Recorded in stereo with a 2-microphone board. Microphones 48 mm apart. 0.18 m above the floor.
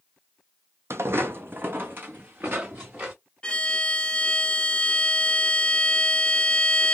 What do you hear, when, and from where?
0.9 s footsteps: 60° right (ahead or behind), 0.5 m; by 3.1 s 35° right (ahead or behind), 1.5 m
3.4 s a violin: 20° left (ahead or behind), 0.6 m